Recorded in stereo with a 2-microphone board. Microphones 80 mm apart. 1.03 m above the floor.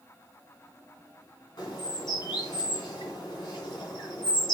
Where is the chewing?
No chewing in this recording.